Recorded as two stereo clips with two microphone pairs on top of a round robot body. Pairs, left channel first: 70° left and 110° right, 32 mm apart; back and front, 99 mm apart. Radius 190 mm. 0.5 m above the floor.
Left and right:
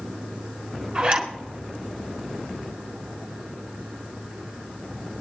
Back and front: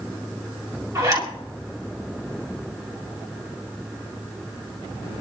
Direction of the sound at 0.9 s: 50° right.